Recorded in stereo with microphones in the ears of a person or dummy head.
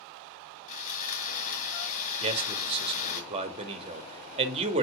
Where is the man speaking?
35° right (ahead or behind), 2 m.